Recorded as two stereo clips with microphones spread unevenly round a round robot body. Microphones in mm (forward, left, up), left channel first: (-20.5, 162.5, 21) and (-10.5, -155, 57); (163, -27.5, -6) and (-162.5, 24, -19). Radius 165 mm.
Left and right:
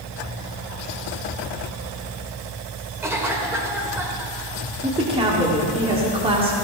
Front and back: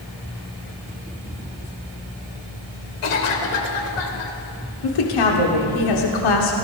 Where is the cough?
5° right, 2.5 m.